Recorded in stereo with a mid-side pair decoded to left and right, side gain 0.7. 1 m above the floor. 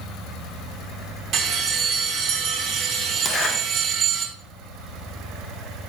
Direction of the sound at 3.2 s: 40° left.